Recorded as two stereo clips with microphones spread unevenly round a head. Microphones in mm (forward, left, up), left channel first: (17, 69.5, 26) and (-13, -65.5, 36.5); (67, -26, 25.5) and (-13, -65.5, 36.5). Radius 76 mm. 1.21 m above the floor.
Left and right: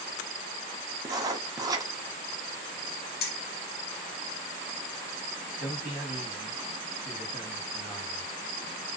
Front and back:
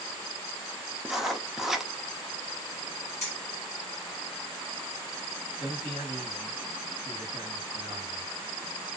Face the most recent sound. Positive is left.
turn(degrees=180)